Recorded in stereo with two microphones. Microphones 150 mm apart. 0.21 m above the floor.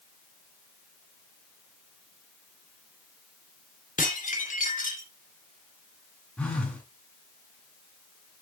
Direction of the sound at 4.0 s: 60° left (ahead or behind).